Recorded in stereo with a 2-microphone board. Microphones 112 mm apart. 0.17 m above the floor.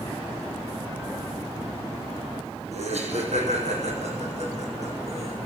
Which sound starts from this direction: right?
Laughter, at 2.7 s.